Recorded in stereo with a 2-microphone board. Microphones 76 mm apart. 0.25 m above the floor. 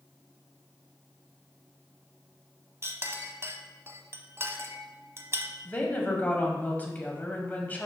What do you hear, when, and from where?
2.8 s a clink: 35° right (ahead or behind), 0.7 m
5.7 s a woman speaking: 25° left (ahead or behind), 1.3 m